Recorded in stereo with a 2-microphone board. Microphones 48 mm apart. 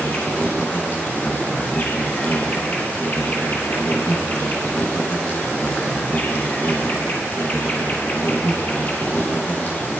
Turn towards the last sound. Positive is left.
turn(degrees=35)  # may be behind; listen again after turning